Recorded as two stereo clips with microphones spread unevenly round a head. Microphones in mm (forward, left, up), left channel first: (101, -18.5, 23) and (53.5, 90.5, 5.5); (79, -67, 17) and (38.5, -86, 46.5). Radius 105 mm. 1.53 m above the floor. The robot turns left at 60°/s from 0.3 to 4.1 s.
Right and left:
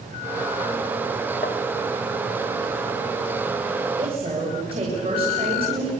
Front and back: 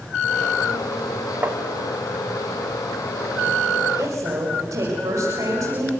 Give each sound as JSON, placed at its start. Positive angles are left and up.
{"t": 1.4, "sound": "tapping", "azimuth_deg": -110, "distance_m": 0.9}
{"t": 4.0, "sound": "a woman speaking", "azimuth_deg": -175, "distance_m": 6.5}